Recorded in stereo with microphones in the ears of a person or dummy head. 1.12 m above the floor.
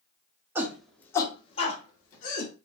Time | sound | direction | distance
0.6 | a shout | 10° right (ahead or behind) | 0.9 m